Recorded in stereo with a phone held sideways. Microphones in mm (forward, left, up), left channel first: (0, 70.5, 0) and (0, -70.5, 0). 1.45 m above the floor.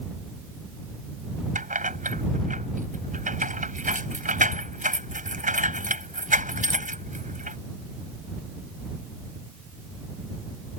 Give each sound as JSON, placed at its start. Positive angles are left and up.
{"t": 1.6, "sound": "keys jangling", "side_deg": -80}